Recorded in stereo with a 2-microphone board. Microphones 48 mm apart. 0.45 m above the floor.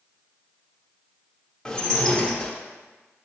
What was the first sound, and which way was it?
Dishes clattering, 15° left (ahead or behind).